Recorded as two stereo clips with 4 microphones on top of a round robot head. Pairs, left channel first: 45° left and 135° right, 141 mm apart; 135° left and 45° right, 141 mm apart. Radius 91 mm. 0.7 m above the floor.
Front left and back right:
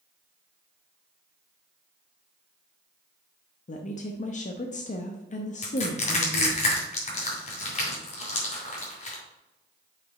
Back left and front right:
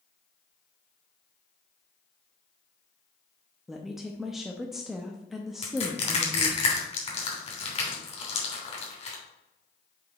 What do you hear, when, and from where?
3.7 s a woman speaking: 40° left, 0.7 m
5.6 s crushing: 85° left, 3 m